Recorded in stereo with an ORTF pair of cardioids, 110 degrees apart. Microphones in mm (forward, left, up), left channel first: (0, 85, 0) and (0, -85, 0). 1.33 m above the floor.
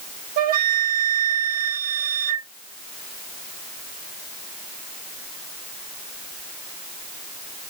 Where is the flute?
60° right, 0.7 m.